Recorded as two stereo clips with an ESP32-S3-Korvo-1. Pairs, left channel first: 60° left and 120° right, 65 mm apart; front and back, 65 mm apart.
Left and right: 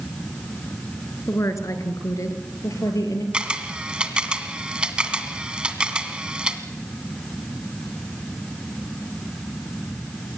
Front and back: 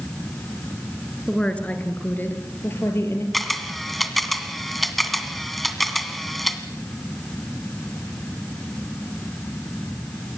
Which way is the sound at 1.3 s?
75° left.